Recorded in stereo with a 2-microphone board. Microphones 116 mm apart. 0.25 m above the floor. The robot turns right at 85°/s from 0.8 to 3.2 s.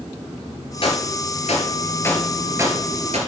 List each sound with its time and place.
0.8 s a gunshot: 50° left (ahead or behind), 2 m; by 3.2 s 70° right (ahead or behind), 2 m